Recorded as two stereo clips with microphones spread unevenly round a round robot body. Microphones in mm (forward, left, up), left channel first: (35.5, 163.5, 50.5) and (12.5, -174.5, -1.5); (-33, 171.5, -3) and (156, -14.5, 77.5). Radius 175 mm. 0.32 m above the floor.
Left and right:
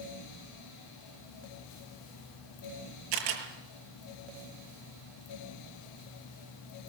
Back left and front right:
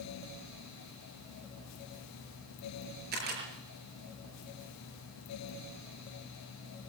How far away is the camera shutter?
About 6.5 m.